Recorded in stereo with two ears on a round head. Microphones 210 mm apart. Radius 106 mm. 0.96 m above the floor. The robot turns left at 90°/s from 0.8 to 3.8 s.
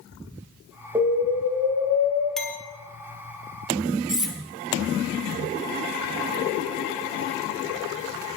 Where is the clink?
Centre (ahead or behind), 1.1 m; by 2.6 s 25° left (ahead or behind), 1.1 m.